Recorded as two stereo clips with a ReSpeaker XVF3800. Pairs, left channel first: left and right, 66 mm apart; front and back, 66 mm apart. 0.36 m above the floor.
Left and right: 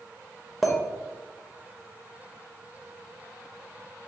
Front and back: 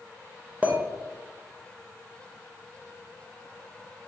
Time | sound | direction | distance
0.6 | a clink | straight behind | 0.7 m